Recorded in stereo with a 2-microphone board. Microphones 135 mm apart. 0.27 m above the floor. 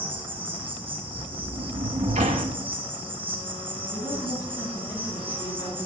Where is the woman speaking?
25° left (ahead or behind), 2.5 m.